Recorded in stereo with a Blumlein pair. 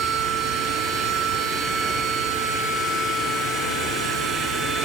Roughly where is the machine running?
Ahead.